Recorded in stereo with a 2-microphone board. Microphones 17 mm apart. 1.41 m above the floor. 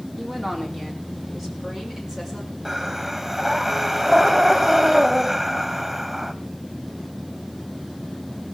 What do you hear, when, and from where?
0.2 s a woman speaking: 30° right (ahead or behind), 3.5 m; by 2.5 s 20° right (ahead or behind), 5.5 m
2.6 s breathing: 20° right (ahead or behind), 1.2 m